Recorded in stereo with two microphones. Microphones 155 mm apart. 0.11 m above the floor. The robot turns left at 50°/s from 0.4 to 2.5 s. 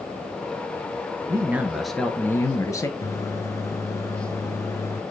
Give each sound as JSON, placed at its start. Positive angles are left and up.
{"t": 1.3, "sound": "a man speaking", "azimuth_deg": -150, "distance_m": 1.4}
{"t": 3.0, "sound": "a microwave", "side_deg": 20, "distance_m": 1.0}